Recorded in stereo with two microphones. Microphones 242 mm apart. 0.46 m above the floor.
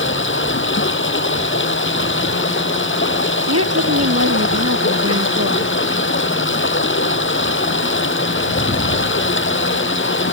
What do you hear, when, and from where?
0.0 s running water: 55° left (ahead or behind)
3.5 s a woman speaking: 80° right